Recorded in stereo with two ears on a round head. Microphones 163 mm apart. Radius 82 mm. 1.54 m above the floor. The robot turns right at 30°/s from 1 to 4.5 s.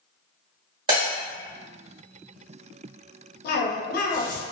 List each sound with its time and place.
0.9 s breaking glass: 25° right (ahead or behind), 1.5 m; by 1.1 s 30° right (ahead or behind), 1.5 m
3.4 s a cough: 55° left (ahead or behind), 0.6 m; by 4.4 s 45° left (ahead or behind), 0.6 m